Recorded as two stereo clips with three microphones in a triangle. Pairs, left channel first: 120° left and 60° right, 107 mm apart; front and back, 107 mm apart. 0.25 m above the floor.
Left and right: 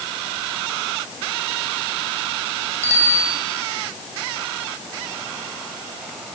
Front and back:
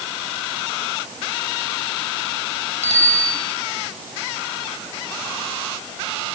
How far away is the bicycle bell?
About 4.5 m.